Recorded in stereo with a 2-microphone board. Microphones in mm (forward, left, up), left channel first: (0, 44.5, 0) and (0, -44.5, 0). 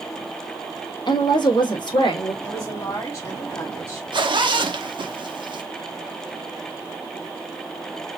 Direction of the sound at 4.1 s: 60° right (ahead or behind).